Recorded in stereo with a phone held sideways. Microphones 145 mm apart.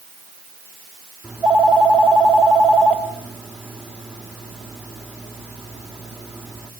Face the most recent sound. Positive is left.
turn(degrees=-5)  # may be behind; listen again after turning